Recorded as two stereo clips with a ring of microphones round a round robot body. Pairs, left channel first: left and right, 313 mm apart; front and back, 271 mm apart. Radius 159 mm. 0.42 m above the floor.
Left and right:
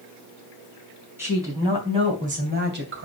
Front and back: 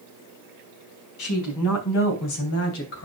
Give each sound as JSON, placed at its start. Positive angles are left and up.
{"t": 1.2, "sound": "a woman speaking", "azimuth_deg": -10, "distance_m": 4.0}